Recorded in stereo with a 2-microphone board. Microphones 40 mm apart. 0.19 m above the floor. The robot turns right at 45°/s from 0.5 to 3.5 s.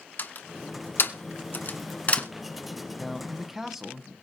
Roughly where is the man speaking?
Centre.